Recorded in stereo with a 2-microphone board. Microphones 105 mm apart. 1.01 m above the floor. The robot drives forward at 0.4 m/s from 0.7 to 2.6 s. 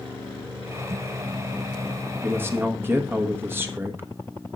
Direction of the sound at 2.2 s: 20° right (ahead or behind).